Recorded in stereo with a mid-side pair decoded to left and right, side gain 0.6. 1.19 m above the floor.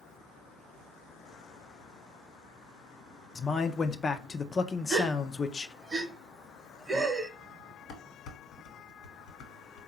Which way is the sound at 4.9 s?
25° right.